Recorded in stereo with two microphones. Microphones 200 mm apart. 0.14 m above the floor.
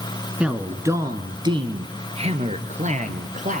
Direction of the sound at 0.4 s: 5° right (ahead or behind).